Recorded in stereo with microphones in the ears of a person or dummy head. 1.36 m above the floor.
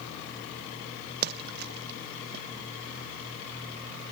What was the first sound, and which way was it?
A splash, 55° right (ahead or behind).